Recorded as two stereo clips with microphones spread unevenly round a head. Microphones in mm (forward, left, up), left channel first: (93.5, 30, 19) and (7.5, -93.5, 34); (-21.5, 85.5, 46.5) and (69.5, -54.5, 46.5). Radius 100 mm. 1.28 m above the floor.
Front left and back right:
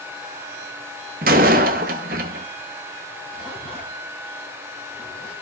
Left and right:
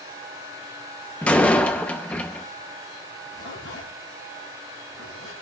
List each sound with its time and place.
1.2 s a door slam: 155° right, 0.8 m
3.3 s a zipper: 140° left, 4.5 m